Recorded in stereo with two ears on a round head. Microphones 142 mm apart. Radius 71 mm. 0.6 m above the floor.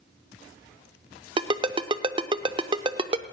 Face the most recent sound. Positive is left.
turn(degrees=-30)  # may be behind; listen again after turning